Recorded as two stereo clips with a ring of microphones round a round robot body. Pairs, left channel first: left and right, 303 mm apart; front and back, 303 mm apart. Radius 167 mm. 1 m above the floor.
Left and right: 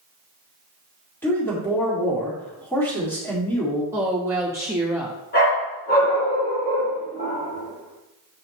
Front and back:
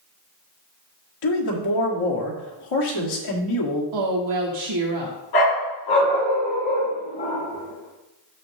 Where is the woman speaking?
170° right, 1.1 m.